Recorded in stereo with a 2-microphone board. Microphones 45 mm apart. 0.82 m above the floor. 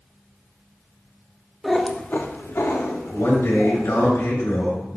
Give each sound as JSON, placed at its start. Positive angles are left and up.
{"t": 1.6, "sound": "a cat meowing", "side_deg": -5, "distance_m": 0.7}
{"t": 3.1, "sound": "a man speaking", "side_deg": 75, "distance_m": 2.5}